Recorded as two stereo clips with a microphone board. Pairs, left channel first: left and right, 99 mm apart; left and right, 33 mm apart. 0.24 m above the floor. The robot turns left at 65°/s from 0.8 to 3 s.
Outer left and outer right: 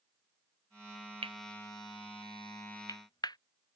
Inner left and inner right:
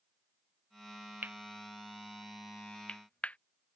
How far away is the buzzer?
I don't hear a buzzer.